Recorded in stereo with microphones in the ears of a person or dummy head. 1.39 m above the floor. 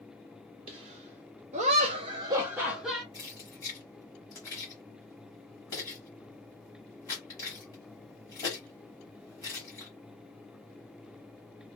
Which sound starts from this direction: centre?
Keys jangling, at 3.1 s.